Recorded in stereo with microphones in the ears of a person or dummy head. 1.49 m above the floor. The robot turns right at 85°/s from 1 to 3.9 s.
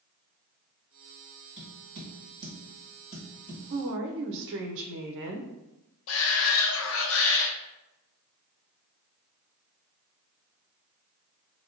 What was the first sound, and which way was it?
Tapping, 55° right (ahead or behind).